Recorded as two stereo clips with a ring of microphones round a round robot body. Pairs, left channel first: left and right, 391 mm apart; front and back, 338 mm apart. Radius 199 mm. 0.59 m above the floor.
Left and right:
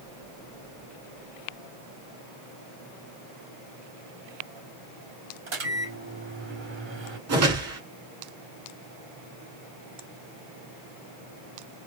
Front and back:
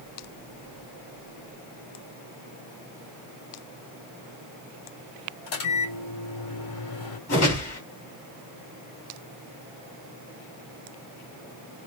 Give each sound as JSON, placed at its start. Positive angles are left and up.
{"t": 5.5, "sound": "a microwave", "azimuth_deg": -30, "distance_m": 3.0}
{"t": 7.3, "sound": "a whoosh", "azimuth_deg": -50, "distance_m": 2.5}